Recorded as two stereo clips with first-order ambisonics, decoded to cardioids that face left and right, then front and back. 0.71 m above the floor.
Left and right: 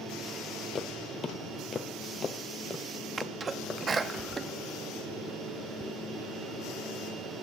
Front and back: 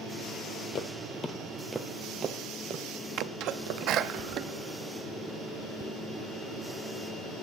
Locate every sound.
0.8 s footsteps: 25° left, 0.9 m; by 4.2 s 175° left, 1.6 m
3.2 s a sneeze: 155° right, 0.6 m